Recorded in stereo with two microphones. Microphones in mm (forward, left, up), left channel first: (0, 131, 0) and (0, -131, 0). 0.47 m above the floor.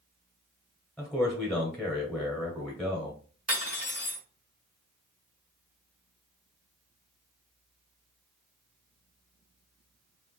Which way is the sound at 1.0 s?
Centre (ahead or behind).